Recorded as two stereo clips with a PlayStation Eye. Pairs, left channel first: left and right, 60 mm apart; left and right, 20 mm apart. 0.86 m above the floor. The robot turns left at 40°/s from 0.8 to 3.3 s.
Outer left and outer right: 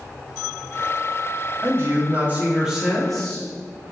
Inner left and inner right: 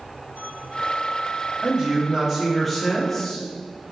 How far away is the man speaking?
About 1.0 m.